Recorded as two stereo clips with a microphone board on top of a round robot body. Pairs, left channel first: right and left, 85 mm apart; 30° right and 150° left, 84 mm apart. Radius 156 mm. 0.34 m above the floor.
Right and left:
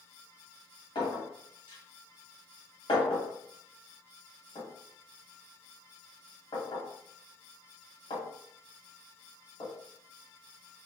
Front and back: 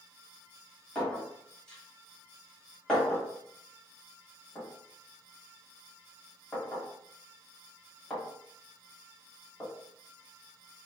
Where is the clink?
110° right, 1.6 m.